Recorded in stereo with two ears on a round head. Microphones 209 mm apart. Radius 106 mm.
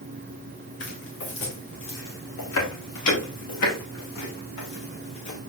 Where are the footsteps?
50° left (ahead or behind), 4.5 m; by 5.4 s 80° left, 6 m.